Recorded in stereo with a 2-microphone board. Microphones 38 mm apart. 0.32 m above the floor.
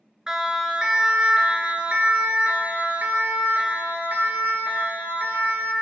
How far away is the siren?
About 3.5 m.